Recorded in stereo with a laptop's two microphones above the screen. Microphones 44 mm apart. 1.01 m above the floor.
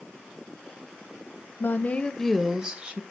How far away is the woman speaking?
About 0.8 m.